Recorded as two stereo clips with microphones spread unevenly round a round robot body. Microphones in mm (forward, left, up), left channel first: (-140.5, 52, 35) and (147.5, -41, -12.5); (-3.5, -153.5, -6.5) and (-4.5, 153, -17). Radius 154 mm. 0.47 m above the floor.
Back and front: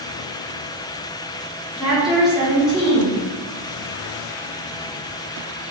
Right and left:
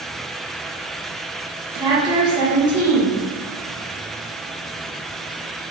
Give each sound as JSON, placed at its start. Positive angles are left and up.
{"t": 1.8, "sound": "a woman speaking", "azimuth_deg": 45, "distance_m": 1.0}